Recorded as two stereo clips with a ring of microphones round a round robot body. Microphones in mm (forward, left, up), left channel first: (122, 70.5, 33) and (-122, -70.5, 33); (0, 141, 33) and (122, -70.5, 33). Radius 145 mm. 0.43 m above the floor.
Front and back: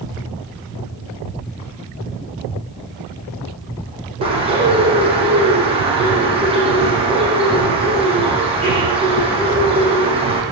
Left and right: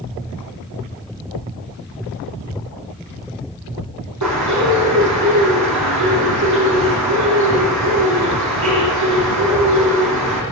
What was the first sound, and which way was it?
A bird, 80° right.